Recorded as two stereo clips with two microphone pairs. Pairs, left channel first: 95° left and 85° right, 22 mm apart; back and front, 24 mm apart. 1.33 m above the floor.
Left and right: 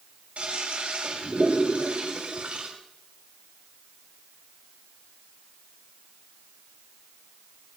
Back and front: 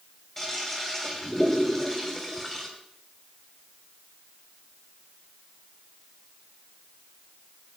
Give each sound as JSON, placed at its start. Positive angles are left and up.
{"t": 0.4, "sound": "a toilet flushing", "azimuth_deg": -100, "distance_m": 3.5}